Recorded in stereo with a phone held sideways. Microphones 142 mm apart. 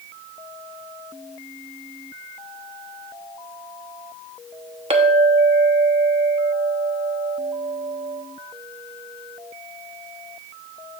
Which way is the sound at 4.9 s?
45° right (ahead or behind).